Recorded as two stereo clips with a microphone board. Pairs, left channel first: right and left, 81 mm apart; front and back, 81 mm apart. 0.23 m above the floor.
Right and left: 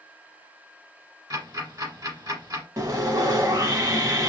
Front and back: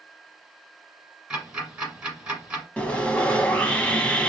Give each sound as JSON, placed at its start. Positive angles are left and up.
{"t": 1.3, "sound": "ticking", "azimuth_deg": 105, "distance_m": 1.4}
{"t": 2.8, "sound": "sawing", "azimuth_deg": 70, "distance_m": 0.6}